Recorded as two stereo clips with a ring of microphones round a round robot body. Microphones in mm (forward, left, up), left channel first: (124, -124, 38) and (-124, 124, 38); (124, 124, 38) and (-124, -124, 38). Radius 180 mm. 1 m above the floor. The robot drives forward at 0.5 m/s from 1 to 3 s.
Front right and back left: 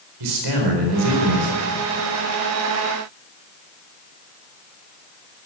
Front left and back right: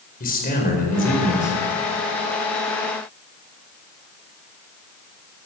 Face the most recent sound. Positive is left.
turn(degrees=125)